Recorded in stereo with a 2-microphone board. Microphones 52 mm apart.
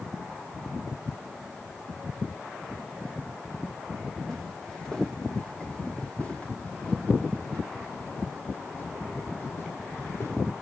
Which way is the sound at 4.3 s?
5° left (ahead or behind).